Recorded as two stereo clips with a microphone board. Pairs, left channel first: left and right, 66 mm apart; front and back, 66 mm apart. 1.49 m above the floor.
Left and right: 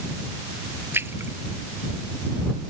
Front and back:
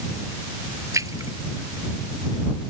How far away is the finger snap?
I don't hear a finger snap.